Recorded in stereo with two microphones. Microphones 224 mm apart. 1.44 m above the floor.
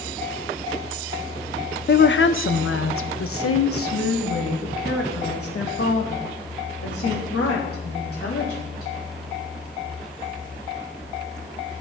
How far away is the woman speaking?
About 0.7 m.